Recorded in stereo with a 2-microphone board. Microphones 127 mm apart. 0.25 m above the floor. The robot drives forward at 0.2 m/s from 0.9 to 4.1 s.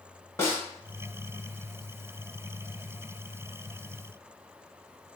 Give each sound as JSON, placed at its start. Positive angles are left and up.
{"t": 0.4, "sound": "a snare drum", "side_deg": 20, "distance_m": 0.9}